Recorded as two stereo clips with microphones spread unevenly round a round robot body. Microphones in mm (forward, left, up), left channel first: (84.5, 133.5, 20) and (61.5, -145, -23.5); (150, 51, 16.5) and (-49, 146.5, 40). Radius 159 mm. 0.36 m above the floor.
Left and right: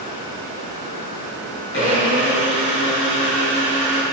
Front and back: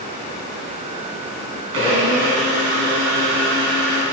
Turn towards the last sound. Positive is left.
turn(degrees=145)